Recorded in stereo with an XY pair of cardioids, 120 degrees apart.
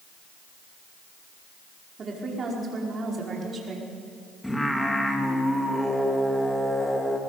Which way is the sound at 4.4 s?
5° left.